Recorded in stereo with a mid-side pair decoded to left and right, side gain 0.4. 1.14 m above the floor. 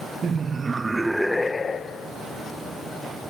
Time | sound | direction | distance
0.2 | laughter | 50° right | 1.7 m